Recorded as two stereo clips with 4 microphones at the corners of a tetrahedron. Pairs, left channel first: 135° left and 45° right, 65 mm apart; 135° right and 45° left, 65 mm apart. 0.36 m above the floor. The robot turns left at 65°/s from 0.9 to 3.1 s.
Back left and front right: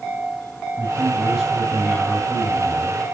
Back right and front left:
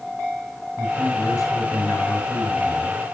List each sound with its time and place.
0.8 s a man speaking: 120° right, 2.5 m; by 3.0 s 105° left, 2.5 m